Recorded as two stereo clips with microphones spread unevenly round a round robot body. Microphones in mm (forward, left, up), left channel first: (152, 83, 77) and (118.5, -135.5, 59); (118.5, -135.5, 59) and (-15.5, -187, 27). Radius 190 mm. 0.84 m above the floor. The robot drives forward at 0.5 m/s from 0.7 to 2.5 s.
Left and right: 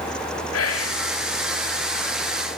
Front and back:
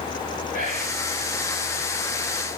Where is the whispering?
75° left, 2 m; by 1.0 s 80° left, 2 m.